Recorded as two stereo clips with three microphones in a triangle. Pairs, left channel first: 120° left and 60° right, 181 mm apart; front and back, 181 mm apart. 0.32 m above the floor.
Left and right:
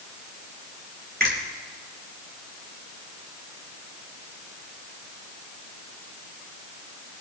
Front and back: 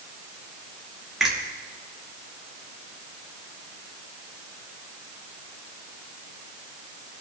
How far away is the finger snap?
About 5.5 m.